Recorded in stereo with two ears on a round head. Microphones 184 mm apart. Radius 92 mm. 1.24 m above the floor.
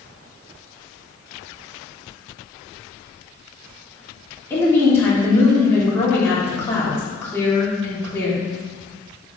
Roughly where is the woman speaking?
Centre.